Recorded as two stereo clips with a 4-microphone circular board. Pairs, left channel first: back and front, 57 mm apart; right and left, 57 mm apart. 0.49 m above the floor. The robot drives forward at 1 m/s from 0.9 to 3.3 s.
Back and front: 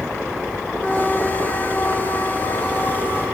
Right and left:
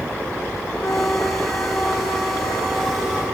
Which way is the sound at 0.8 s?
105° right.